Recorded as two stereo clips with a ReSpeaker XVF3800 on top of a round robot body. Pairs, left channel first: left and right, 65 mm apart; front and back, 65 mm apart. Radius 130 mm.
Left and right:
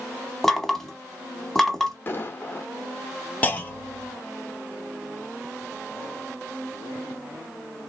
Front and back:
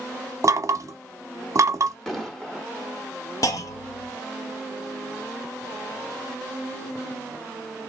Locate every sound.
0.4 s knocking: 175° left, 0.9 m
2.1 s an explosion: 80° left, 1.4 m
3.4 s a clunk: 25° left, 1.0 m